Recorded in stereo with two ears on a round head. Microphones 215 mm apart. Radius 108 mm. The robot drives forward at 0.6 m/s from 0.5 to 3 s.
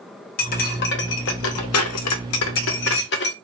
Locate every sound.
0.4 s cutlery clinking: 40° left (ahead or behind), 1.2 m; by 3.3 s 50° left (ahead or behind), 1.0 m